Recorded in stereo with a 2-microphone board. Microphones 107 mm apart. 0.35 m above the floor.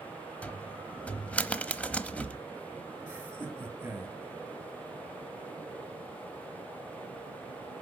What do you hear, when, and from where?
0.4 s a cupboard door: 15° left (ahead or behind), 0.8 m
3.1 s laughter: 20° right (ahead or behind), 2.5 m